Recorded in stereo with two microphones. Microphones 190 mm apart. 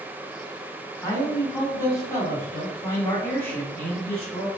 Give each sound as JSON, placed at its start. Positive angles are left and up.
{"t": 1.0, "sound": "a man speaking", "side_deg": 15, "distance_m": 1.3}